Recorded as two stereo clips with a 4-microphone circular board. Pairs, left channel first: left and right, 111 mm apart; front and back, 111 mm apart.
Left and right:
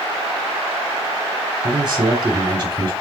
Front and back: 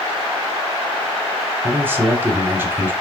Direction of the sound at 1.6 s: 120° right.